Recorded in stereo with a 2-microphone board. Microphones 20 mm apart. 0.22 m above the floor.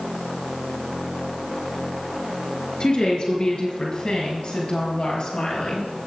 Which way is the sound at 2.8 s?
55° left (ahead or behind).